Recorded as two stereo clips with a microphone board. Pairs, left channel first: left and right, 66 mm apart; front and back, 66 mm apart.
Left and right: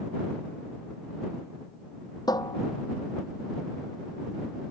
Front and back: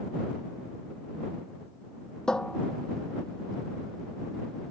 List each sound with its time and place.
2.3 s a cupboard door: 80° left